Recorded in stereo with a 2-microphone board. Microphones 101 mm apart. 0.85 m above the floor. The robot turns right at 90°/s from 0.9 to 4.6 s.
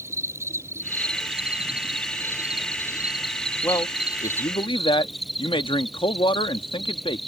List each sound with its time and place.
0.0 s an insect: 155° right; by 7.3 s straight behind
3.6 s a man speaking: 30° left; by 7.2 s 115° left